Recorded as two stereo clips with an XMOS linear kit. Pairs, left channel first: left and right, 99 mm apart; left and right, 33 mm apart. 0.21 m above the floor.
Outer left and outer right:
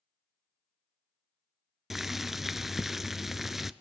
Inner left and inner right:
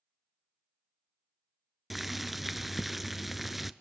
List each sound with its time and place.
1.9 s boiling: 5° right (ahead or behind), 0.7 m